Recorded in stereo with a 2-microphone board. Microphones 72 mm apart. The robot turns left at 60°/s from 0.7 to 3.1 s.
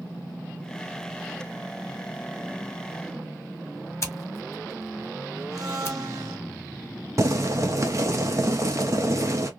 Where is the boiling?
45° right (ahead or behind), 0.8 m.